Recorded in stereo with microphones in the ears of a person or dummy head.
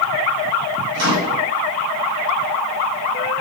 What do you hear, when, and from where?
0.9 s a microwave: 80° right, 1.1 m